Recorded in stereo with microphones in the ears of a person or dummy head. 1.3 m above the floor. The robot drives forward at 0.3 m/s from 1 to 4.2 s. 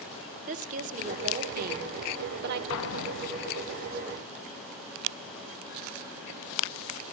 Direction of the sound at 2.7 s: 65° left (ahead or behind).